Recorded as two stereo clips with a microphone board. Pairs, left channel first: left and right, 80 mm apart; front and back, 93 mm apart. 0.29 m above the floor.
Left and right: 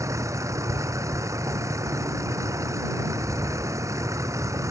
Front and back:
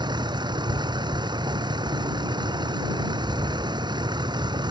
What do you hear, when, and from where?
0.0 s a vehicle: 140° right